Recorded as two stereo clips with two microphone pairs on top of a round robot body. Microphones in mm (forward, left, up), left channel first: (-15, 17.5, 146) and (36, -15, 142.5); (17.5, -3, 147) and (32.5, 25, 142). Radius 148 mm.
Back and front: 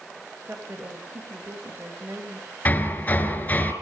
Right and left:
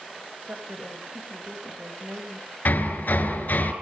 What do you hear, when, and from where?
0.5 s a woman speaking: 30° left, 3.5 m
2.6 s hammering: 155° right, 4 m